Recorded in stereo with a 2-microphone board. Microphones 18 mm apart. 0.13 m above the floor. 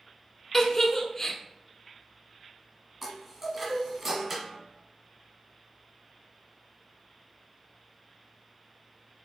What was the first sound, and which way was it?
A giggle, 25° left (ahead or behind).